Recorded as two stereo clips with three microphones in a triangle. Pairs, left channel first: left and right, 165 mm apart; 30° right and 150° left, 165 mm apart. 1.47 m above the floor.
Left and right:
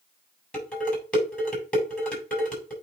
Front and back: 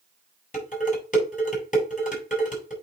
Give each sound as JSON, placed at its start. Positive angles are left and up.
{"t": 0.5, "sound": "dishes clattering", "azimuth_deg": 5, "distance_m": 4.5}